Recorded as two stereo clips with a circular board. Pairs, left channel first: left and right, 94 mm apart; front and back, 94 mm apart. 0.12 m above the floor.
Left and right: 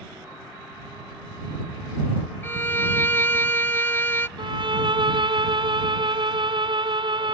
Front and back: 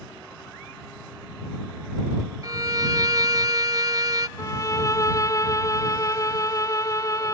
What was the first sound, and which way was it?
A violin, 150° left.